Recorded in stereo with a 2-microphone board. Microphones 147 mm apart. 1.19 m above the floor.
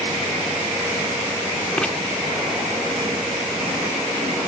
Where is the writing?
5° left (ahead or behind).